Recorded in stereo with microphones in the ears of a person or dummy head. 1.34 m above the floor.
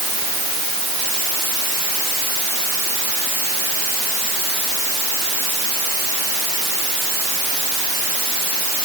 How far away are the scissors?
No scissors in this recording.